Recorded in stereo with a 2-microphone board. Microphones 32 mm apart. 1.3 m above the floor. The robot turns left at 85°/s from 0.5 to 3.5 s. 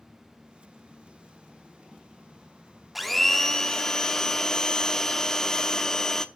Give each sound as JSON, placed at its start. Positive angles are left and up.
{"t": 3.0, "sound": "a blender", "side_deg": -5, "distance_m": 0.8}